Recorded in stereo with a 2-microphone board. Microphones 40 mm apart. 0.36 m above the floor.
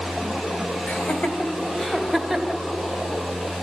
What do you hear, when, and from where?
0.9 s laughter: 50° left (ahead or behind), 1.9 m; by 2.6 s 5° right (ahead or behind), 1.8 m